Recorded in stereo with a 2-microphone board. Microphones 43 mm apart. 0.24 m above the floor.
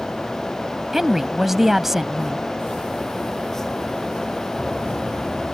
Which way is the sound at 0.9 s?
10° right (ahead or behind).